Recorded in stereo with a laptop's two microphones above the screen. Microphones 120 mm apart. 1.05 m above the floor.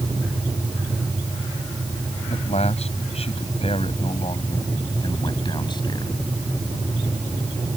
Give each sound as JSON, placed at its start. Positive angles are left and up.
{"t": 2.3, "sound": "a man speaking", "side_deg": 65}